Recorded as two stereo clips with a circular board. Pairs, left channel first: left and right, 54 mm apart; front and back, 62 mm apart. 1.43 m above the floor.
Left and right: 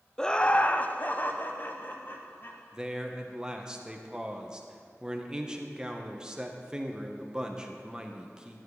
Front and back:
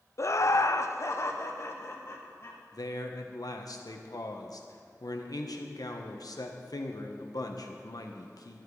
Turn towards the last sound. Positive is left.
turn(degrees=-10)